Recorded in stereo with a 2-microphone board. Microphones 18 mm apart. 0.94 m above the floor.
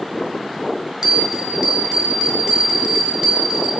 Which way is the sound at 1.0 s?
40° right (ahead or behind).